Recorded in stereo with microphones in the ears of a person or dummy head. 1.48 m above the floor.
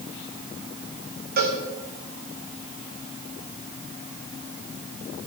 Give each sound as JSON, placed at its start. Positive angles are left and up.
{"t": 1.4, "sound": "a cowbell", "side_deg": -50, "distance_m": 2.5}